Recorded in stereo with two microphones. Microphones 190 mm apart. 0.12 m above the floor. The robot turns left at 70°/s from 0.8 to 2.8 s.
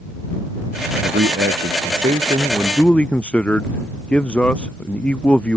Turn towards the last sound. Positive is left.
turn(degrees=175)